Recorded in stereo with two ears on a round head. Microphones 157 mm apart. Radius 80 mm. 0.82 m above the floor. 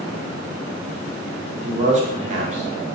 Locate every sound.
1.6 s a man speaking: 40° right (ahead or behind), 0.6 m